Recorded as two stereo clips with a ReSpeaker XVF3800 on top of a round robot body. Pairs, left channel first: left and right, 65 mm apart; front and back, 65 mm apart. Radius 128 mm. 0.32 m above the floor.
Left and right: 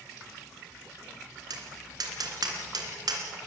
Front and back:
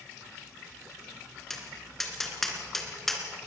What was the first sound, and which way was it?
Tapping, 85° right.